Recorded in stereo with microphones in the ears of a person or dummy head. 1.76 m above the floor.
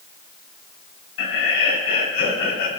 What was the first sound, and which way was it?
Laughter, 85° left.